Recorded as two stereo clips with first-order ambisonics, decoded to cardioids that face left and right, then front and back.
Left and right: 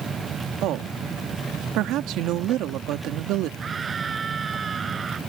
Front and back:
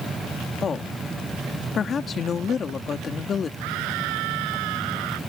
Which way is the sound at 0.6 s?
70° right.